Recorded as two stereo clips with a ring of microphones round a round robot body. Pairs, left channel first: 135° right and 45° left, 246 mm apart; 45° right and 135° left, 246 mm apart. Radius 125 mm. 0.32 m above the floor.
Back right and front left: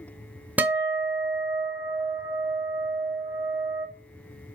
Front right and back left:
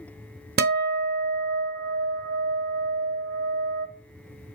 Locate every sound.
0.6 s a guitar: 125° left, 0.8 m